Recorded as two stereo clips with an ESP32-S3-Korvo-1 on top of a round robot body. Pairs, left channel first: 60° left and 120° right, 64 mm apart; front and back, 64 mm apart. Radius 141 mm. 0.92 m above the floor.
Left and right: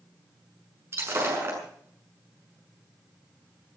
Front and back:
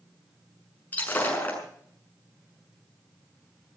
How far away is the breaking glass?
About 6.5 m.